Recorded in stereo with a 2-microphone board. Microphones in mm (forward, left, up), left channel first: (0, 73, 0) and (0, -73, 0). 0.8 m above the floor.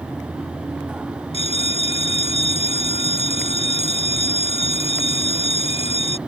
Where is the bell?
45° left (ahead or behind).